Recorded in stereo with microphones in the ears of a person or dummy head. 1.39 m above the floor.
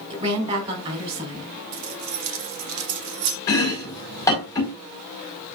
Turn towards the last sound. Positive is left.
turn(degrees=20)  # may be behind; listen again after turning